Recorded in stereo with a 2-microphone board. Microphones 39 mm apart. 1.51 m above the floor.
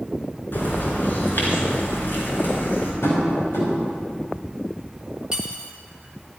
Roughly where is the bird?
Left.